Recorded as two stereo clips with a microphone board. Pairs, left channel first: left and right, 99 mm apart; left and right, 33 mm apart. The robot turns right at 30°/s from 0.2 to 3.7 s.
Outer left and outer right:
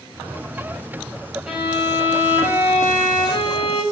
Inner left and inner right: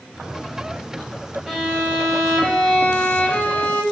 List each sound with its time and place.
1.5 s a violin: 10° right, 10 m; by 3.8 s 60° left, 10 m